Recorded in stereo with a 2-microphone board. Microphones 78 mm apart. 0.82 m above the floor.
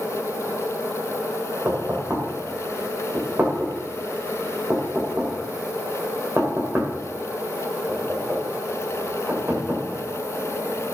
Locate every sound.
1.6 s knocking: 25° right (ahead or behind), 2.5 m